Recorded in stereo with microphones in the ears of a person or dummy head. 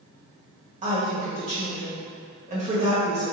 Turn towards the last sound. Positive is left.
turn(degrees=-40)  # may be behind; listen again after turning